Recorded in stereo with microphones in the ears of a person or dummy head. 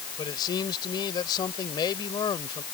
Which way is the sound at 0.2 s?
20° left (ahead or behind).